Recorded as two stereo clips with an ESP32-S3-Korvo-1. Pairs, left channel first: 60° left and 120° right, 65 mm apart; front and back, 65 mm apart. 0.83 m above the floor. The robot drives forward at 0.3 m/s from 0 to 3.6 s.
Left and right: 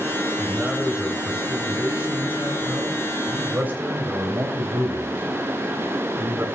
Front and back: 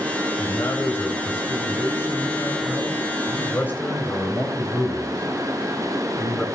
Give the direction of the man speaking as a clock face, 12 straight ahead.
2 o'clock.